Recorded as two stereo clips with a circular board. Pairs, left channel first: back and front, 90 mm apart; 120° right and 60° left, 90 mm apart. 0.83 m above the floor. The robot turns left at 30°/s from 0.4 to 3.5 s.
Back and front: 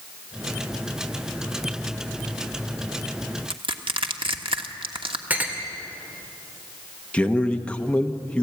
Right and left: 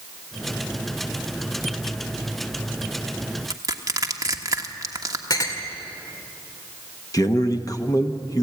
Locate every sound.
3.5 s crushing: 10° left, 1.3 m
5.3 s a clink: 75° right, 2 m
7.1 s a man speaking: 110° right, 1.2 m